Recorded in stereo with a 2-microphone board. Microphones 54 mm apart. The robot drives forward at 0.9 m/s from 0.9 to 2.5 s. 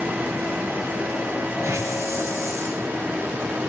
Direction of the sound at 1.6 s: 75° right (ahead or behind).